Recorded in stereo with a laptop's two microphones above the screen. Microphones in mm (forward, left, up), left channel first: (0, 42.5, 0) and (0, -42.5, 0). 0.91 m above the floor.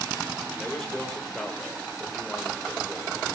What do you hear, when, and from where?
0.6 s a man speaking: 5° left (ahead or behind), 3.5 m